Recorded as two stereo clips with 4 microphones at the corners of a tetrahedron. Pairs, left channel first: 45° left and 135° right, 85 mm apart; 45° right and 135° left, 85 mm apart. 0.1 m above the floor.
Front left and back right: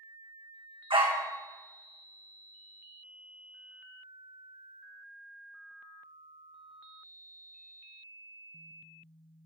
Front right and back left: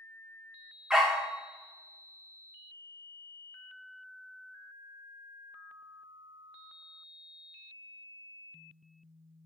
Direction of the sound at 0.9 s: 140° right.